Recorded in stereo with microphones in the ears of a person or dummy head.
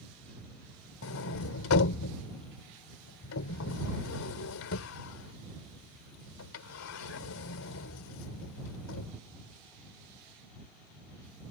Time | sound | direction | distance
1.0 | a sliding door | 80° left | ?